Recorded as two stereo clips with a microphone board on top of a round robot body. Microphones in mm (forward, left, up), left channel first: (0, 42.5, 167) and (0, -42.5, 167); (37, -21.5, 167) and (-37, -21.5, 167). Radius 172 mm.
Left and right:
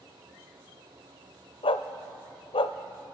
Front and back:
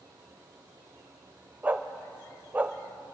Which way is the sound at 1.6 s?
110° left.